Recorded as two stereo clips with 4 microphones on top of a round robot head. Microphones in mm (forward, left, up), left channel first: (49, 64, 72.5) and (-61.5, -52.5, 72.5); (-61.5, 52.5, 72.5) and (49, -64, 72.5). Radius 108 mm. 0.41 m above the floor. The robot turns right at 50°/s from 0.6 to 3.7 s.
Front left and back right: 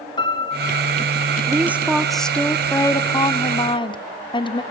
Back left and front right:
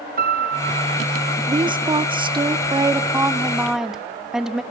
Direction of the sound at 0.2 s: 15° right.